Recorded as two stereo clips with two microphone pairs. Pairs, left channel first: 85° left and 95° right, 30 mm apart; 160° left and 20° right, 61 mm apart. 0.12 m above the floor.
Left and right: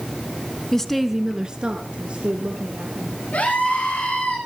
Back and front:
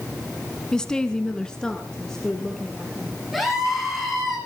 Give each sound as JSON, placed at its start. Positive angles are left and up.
{"t": 0.7, "sound": "a woman speaking", "azimuth_deg": 95, "distance_m": 1.0}
{"t": 3.3, "sound": "a scream", "azimuth_deg": 65, "distance_m": 9.5}